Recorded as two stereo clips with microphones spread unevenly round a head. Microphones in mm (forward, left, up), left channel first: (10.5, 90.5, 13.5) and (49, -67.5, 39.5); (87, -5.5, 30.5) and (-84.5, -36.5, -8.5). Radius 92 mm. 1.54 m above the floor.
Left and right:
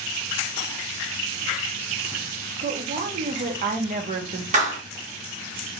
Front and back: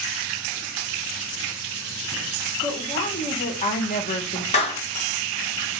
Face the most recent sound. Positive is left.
turn(degrees=-35)